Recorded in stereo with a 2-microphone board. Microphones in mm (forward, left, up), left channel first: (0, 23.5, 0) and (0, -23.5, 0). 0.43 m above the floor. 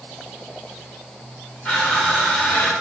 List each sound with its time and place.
1.6 s crushing: 20° left (ahead or behind), 1.8 m